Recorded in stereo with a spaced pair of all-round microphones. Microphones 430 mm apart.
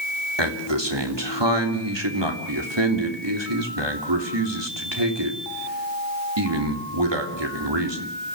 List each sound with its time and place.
0.4 s a man speaking: 75° right (ahead or behind), 3.5 m